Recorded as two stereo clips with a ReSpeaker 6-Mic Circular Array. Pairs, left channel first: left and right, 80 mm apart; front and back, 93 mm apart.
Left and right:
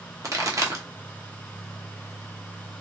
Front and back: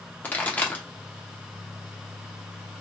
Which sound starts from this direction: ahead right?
A pop, at 0.2 s.